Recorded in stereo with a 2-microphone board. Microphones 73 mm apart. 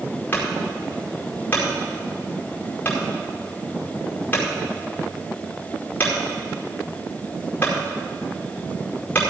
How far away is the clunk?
About 4.5 m.